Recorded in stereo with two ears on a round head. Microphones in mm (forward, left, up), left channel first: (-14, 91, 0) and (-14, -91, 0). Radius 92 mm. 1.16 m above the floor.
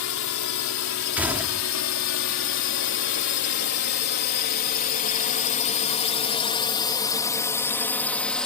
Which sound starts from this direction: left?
A drone, at 0.0 s.